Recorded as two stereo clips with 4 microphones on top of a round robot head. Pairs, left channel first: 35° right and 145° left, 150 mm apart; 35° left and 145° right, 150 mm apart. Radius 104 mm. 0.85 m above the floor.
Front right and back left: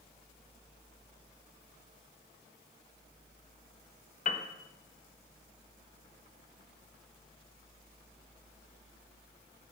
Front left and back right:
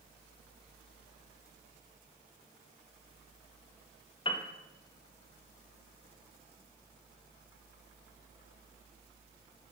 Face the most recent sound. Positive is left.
turn(degrees=-15)